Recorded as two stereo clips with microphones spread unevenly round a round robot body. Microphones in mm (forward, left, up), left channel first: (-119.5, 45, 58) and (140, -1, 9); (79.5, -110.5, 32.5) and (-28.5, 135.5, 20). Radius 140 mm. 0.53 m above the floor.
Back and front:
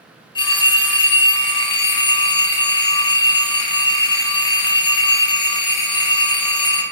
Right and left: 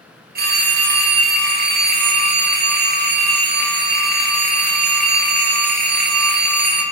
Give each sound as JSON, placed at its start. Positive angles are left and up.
{"t": 0.3, "sound": "a phone ringing", "azimuth_deg": 90, "distance_m": 0.6}